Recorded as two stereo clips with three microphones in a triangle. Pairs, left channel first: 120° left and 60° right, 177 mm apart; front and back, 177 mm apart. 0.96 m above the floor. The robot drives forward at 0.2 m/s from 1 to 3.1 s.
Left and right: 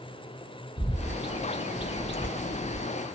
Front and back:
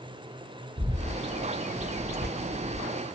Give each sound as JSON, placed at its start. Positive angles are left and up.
{"t": 0.8, "sound": "a bird", "azimuth_deg": 155, "distance_m": 0.7}
{"t": 2.1, "sound": "tearing paper", "azimuth_deg": -160, "distance_m": 1.1}